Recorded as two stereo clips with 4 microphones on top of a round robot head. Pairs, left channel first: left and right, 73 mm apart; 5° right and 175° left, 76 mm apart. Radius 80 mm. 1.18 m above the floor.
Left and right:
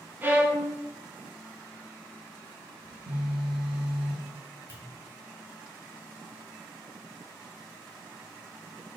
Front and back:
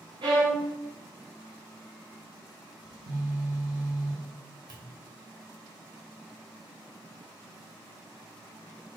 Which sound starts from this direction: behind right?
A violin, at 0.2 s.